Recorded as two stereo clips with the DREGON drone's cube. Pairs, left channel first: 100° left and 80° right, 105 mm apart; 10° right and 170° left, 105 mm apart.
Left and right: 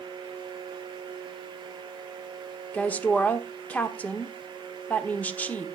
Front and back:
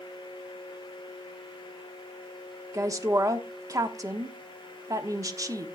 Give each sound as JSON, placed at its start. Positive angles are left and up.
{"t": 2.7, "sound": "a woman speaking", "azimuth_deg": 160, "distance_m": 1.1}